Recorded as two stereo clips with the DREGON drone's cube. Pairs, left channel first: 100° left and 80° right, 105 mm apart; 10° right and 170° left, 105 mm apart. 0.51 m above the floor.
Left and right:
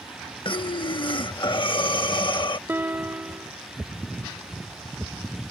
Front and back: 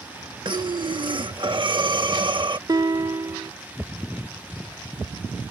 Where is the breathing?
135° left.